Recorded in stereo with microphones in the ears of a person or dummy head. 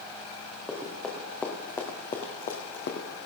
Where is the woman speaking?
I don't hear a woman speaking.